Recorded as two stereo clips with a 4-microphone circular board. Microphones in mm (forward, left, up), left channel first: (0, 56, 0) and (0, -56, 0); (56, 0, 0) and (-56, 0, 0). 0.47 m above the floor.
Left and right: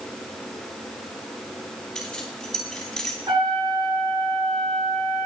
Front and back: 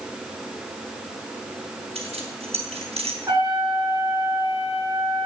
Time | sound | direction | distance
1.9 | keys jangling | 175° left | 3 m
3.3 | a trumpet | 125° right | 6.5 m